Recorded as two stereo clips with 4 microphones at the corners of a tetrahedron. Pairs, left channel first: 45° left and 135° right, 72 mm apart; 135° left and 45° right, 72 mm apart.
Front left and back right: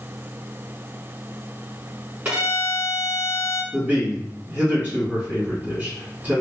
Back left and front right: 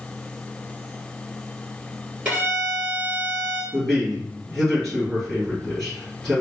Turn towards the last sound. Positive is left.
turn(degrees=-145)